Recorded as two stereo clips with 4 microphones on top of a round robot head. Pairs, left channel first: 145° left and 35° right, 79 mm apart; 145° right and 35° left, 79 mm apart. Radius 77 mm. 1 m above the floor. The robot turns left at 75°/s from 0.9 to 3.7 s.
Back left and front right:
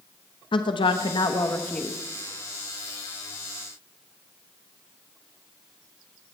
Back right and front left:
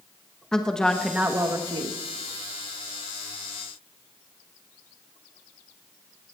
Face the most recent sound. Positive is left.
turn(degrees=-75)